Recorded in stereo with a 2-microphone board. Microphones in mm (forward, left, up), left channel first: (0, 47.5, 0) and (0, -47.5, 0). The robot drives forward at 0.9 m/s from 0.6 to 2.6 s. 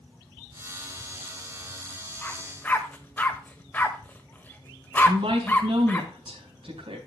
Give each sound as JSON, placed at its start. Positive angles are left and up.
{"t": 2.2, "sound": "a dog barking", "side_deg": 15, "distance_m": 1.5}
{"t": 5.0, "sound": "a woman speaking", "side_deg": -80, "distance_m": 4.5}